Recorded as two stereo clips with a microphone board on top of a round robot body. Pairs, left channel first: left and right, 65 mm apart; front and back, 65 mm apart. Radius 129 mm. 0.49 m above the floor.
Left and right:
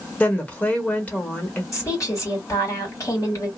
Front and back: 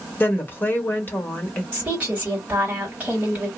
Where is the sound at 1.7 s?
120° left, 2 m.